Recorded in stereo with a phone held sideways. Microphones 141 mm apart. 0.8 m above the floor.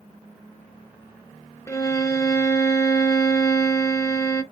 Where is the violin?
25° left (ahead or behind), 0.8 m.